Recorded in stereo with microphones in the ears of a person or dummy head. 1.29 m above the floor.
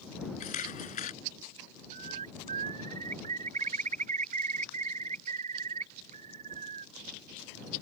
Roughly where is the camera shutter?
Left.